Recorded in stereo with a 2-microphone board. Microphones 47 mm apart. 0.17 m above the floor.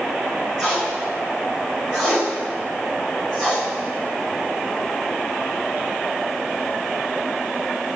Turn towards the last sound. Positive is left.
turn(degrees=0)  # may be behind; listen again after turning